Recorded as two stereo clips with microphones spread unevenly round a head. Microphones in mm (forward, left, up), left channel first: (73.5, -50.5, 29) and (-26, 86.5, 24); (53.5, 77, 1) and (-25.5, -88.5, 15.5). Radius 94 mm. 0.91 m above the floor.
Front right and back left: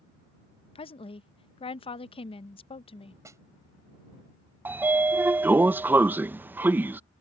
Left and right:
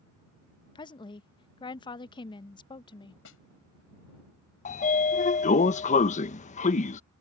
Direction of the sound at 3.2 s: 55° left.